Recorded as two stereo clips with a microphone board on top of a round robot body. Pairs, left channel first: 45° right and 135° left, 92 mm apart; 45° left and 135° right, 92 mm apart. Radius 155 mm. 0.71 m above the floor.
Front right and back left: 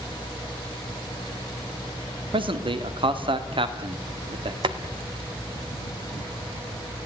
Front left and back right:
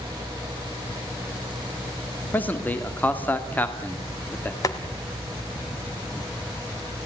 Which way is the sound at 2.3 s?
115° left.